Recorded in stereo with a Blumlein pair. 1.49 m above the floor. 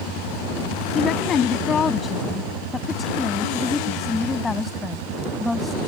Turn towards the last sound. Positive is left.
turn(degrees=5)